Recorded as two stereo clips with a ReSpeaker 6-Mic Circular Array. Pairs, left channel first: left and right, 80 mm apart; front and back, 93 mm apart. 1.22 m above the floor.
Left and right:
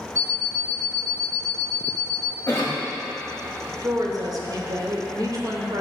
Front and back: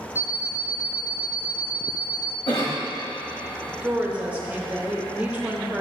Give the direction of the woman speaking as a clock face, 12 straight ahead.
4 o'clock.